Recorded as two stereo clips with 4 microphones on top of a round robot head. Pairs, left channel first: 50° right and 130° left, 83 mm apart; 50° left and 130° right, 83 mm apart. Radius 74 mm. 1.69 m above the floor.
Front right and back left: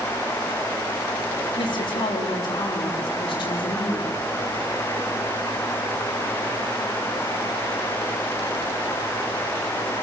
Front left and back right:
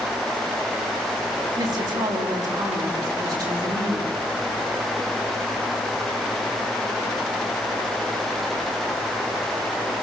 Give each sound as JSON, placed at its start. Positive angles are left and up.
{"t": 1.6, "sound": "a woman speaking", "azimuth_deg": -85, "distance_m": 5.0}